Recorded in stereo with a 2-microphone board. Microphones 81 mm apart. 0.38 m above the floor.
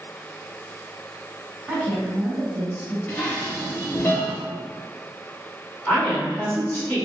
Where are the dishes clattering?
25° left (ahead or behind), 0.7 m.